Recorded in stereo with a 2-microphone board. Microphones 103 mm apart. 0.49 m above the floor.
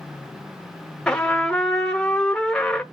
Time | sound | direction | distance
1.1 | a trumpet | 10° left (ahead or behind) | 0.9 m